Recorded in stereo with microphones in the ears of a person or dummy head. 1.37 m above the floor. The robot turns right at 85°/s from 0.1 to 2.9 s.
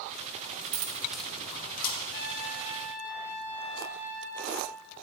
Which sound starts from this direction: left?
A trumpet, at 2.1 s.